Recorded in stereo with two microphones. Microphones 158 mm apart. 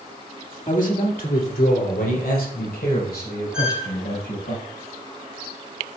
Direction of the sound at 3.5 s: 5° right (ahead or behind).